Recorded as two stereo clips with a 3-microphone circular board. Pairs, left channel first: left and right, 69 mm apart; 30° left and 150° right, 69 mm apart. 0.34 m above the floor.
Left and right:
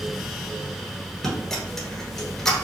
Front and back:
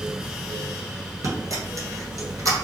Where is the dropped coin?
170° left, 1.5 m.